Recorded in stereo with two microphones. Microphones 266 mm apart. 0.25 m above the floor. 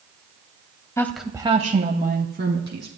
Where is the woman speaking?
10° left (ahead or behind), 1.0 m; by 2.9 s 45° right (ahead or behind), 2 m.